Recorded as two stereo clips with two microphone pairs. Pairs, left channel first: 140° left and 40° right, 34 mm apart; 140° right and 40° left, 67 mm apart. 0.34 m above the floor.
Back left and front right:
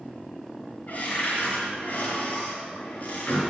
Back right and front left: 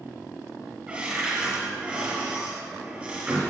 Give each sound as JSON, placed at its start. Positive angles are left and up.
{"t": 0.9, "sound": "a cupboard door", "azimuth_deg": 115, "distance_m": 3.0}